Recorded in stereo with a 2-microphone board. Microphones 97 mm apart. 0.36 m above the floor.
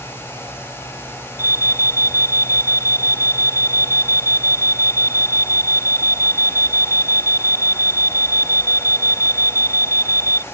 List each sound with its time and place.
1.4 s an alarm: 30° right (ahead or behind)